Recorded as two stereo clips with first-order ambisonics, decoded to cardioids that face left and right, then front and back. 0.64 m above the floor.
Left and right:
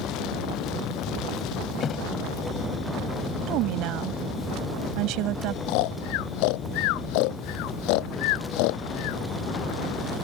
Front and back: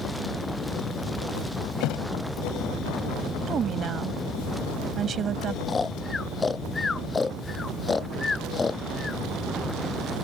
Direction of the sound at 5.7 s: 80° left.